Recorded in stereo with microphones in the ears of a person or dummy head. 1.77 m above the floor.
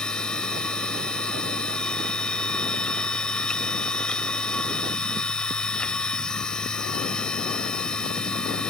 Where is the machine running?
10° left (ahead or behind).